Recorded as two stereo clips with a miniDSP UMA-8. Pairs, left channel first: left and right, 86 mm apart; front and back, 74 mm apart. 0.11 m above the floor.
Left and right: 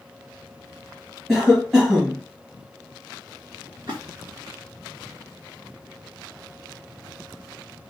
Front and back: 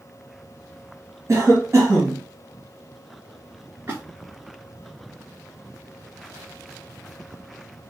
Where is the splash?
120° right, 2.5 m.